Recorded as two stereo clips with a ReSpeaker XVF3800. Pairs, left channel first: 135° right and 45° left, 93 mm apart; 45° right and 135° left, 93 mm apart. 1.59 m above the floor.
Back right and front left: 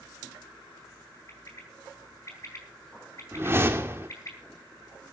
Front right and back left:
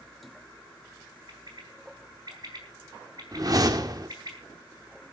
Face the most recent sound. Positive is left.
turn(degrees=100)